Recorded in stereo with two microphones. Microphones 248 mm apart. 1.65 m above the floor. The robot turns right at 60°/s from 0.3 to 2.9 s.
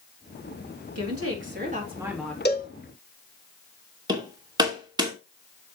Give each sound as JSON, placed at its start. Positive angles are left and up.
{"t": 0.9, "sound": "a woman speaking", "azimuth_deg": -75, "distance_m": 3.5}
{"t": 2.5, "sound": "a cowbell", "side_deg": 40, "distance_m": 1.7}
{"t": 4.1, "sound": "hammering", "side_deg": -15, "distance_m": 2.5}